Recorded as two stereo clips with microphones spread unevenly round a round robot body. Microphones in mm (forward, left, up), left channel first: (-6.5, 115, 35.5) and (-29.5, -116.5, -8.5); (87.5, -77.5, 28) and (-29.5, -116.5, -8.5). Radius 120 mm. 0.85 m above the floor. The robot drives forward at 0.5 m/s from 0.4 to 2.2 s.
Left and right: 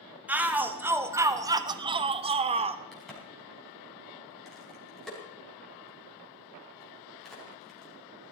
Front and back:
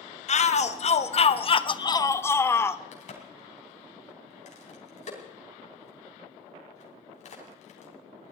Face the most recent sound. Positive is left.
turn(degrees=-5)